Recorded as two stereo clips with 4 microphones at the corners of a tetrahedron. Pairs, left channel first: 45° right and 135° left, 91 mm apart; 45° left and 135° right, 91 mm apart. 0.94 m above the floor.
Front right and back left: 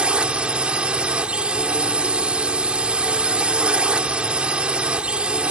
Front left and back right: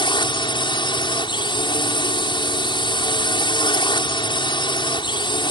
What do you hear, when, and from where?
0.0 s a drone: 55° left